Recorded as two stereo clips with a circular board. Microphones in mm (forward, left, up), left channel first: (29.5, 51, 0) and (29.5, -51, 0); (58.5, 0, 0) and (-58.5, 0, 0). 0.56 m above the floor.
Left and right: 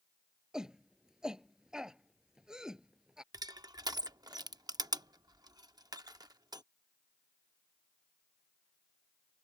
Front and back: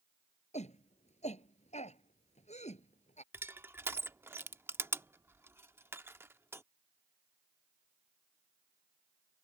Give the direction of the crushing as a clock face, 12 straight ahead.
4 o'clock.